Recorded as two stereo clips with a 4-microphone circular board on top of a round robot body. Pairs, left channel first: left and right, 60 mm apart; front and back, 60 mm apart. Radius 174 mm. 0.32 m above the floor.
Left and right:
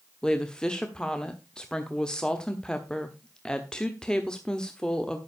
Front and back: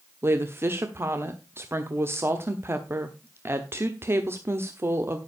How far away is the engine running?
No engine running in this recording.